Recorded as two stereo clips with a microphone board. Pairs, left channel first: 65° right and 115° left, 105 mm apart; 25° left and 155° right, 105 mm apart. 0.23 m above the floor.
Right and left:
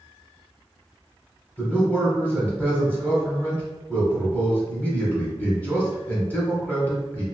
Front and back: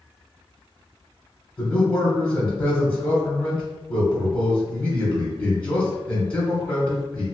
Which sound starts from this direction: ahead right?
A man speaking, at 1.6 s.